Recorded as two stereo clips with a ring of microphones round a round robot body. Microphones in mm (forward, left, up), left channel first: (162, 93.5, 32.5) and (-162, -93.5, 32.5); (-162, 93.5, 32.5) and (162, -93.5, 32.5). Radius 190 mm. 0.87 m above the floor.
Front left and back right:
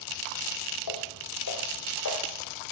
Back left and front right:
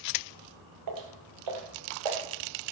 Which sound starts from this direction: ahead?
Footsteps, at 0.9 s.